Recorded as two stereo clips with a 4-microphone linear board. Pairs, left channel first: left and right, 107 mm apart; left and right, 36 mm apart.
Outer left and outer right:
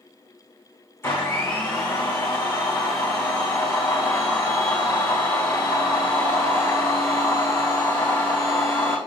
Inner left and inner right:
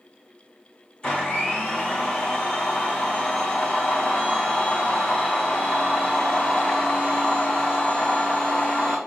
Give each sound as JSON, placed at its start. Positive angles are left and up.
{"t": 1.0, "sound": "a blender", "side_deg": 20, "distance_m": 2.5}